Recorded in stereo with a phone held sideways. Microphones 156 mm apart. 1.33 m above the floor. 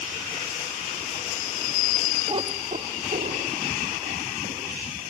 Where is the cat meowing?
30° right (ahead or behind), 1.1 m; by 5.1 s 75° right (ahead or behind), 5 m.